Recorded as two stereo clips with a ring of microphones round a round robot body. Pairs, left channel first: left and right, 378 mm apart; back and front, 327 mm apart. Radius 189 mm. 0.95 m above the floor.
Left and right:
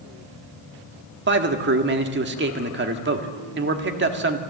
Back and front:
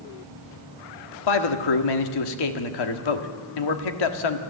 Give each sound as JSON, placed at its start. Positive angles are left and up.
{"t": 1.3, "sound": "a man speaking", "azimuth_deg": -155, "distance_m": 1.7}